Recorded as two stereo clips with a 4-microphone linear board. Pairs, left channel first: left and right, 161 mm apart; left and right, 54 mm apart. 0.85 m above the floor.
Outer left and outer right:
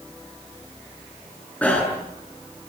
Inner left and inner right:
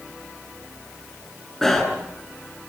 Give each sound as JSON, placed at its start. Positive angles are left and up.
{"t": 1.6, "sound": "a bicycle bell", "side_deg": 10, "distance_m": 7.5}